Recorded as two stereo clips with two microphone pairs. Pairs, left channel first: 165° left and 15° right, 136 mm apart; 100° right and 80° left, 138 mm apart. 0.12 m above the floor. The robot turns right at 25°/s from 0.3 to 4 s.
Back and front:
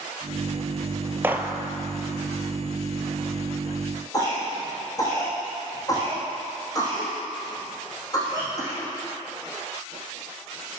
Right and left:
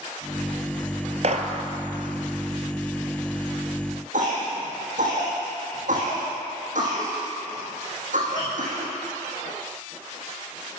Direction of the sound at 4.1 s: 100° left.